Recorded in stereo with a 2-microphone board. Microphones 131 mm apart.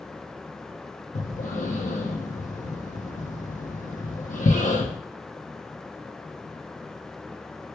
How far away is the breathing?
About 0.9 m.